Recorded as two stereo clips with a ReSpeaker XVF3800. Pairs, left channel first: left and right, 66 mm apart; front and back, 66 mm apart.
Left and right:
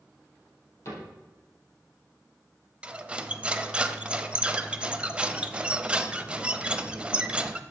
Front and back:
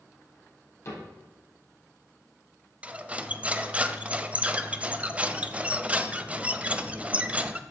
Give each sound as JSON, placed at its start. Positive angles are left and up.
{"t": 0.8, "sound": "a cupboard door", "azimuth_deg": 45, "distance_m": 4.0}
{"t": 2.8, "sound": "cutlery clinking", "azimuth_deg": -140, "distance_m": 0.6}